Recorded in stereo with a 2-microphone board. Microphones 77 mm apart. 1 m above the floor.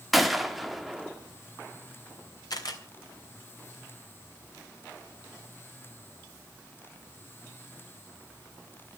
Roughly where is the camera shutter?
Left.